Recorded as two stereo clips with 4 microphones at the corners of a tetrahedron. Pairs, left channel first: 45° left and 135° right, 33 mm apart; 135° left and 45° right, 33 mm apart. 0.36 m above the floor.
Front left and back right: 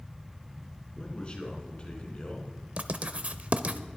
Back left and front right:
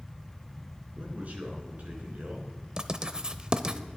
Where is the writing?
100° right, 0.7 m.